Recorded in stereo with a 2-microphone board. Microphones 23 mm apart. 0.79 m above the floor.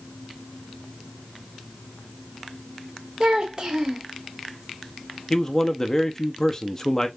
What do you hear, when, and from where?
3.2 s a child speaking: 45° right (ahead or behind), 2 m
5.3 s a man speaking: 20° left (ahead or behind), 0.7 m